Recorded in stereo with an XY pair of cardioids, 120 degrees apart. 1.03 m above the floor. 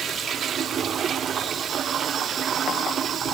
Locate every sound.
Only background noise.